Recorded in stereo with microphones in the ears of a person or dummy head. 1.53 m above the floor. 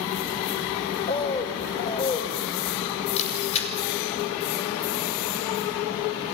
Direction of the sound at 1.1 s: 25° left (ahead or behind).